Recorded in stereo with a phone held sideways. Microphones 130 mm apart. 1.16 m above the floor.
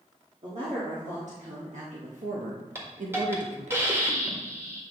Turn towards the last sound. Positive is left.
turn(degrees=-20)  # may be behind; listen again after turning